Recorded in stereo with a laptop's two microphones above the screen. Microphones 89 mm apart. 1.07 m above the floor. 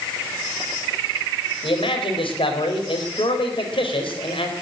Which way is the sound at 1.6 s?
80° left.